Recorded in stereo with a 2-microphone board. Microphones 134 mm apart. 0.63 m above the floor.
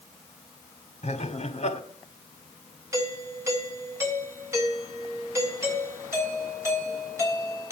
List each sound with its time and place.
1.0 s laughter: 55° left (ahead or behind), 1.9 m
2.9 s a doorbell: 20° right (ahead or behind), 4 m